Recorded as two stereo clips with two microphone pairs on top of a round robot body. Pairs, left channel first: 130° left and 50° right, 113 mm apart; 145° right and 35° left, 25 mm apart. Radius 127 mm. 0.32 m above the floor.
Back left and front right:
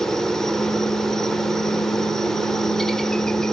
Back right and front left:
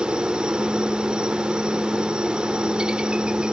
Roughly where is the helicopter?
Ahead left.